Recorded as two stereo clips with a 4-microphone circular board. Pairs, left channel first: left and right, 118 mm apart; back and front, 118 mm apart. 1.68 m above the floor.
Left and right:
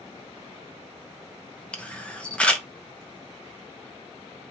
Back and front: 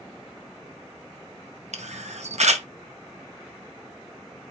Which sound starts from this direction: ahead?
A camera shutter, at 1.7 s.